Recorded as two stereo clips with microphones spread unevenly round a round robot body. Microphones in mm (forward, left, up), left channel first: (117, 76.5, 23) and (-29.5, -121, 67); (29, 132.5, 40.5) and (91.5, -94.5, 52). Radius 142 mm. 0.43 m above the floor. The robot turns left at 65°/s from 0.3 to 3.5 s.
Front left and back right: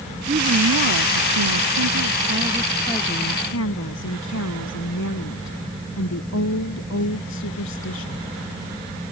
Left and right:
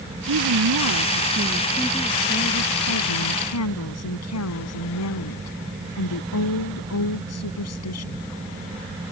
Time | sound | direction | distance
0.3 | a woman speaking | 60° right | ?